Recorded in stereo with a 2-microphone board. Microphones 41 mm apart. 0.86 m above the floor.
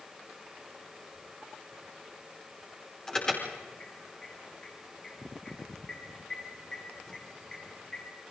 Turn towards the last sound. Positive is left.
turn(degrees=10)  # may be behind; listen again after turning